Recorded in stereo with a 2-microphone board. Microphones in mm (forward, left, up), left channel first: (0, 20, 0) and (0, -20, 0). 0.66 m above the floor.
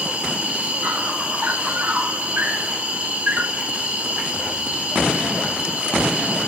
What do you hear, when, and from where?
0.0 s an insect: 35° right (ahead or behind), 3.5 m